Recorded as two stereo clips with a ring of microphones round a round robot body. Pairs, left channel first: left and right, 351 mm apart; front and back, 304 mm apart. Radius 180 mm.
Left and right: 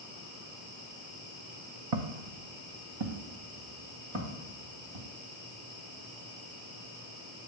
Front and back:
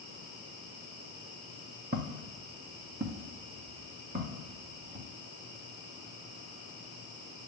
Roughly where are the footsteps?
Right.